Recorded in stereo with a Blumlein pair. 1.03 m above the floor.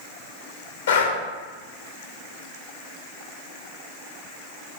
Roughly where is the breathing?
Ahead left.